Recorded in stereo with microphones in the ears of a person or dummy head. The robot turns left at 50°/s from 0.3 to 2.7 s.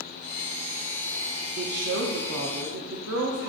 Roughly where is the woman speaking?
Ahead right.